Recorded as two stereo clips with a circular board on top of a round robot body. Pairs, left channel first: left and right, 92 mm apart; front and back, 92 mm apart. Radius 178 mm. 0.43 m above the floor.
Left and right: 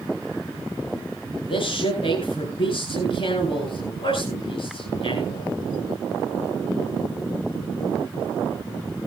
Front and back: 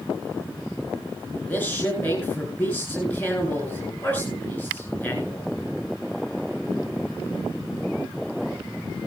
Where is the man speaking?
70° left, 4.5 m.